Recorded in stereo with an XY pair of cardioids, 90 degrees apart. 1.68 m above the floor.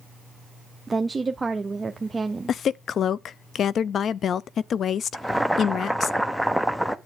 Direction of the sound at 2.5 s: 60° left.